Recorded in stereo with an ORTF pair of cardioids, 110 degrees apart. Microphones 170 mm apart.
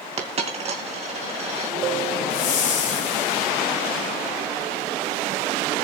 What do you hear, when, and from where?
0.2 s a dropped coin: 40° right, 2.5 m
2.3 s a whoosh: 50° left, 4 m